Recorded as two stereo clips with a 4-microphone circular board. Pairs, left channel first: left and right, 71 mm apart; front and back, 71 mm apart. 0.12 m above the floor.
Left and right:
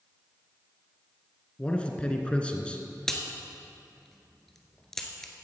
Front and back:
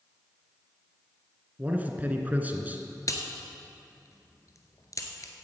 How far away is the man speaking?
About 1.2 m.